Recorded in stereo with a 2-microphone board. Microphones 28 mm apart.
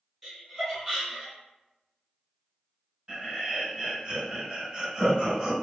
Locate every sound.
0.2 s laughter: centre (ahead or behind), 1.7 m
3.1 s laughter: 30° right (ahead or behind), 1.5 m